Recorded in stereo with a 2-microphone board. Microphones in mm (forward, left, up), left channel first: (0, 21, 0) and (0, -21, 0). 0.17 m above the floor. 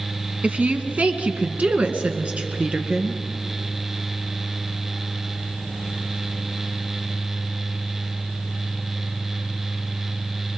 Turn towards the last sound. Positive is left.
turn(degrees=-30)  # may be behind; listen again after turning